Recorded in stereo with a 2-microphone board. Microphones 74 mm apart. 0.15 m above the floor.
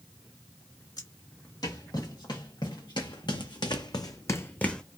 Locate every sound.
1.0 s footsteps: 60° left (ahead or behind), 2 m; by 4.8 s 10° left (ahead or behind), 0.6 m